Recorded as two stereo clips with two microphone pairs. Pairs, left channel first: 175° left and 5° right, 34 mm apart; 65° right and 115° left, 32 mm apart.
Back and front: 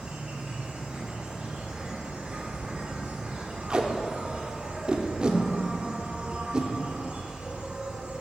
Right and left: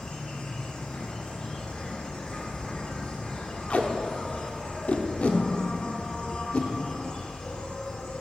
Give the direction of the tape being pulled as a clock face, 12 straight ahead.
1 o'clock.